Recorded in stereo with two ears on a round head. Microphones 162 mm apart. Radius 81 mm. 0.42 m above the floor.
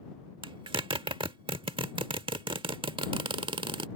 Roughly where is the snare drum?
I don't hear a snare drum.